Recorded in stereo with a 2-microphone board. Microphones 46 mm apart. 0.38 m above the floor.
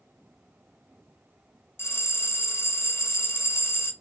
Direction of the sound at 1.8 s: 65° left (ahead or behind).